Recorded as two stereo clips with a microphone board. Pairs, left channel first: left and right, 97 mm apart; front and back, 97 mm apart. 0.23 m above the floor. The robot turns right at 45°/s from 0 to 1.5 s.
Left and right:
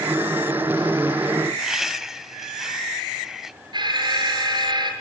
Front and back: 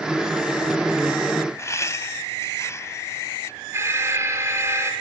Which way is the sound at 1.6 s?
5° right.